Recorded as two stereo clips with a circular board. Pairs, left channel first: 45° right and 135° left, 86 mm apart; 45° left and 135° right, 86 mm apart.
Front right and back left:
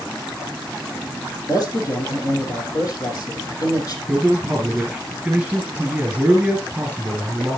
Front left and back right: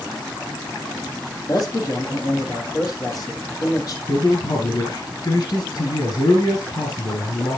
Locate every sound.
1.5 s a man speaking: straight ahead, 5 m
4.1 s a man speaking: 60° left, 3 m